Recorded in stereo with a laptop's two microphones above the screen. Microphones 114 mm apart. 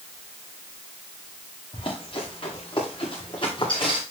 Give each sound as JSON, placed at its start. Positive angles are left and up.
{"t": 1.7, "sound": "running footsteps", "side_deg": 50, "distance_m": 10.0}